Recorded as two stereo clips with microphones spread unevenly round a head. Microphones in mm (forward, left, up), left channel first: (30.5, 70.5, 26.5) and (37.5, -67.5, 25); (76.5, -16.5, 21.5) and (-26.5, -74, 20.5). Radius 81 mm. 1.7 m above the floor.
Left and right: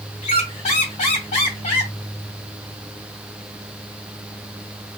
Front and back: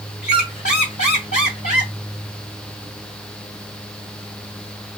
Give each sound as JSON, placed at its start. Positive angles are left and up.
{"t": 0.2, "sound": "a squeak", "azimuth_deg": 65, "distance_m": 2.5}